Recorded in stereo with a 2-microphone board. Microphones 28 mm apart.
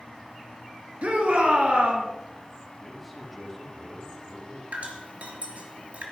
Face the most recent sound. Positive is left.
turn(degrees=-60)  # may be behind; listen again after turning